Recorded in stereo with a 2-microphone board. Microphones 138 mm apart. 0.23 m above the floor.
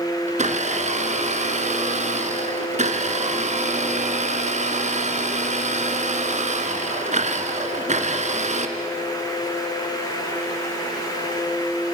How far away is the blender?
About 1.8 m.